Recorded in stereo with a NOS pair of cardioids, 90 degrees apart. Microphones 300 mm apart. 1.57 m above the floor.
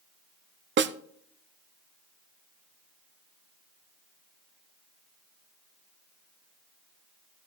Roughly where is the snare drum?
Ahead right.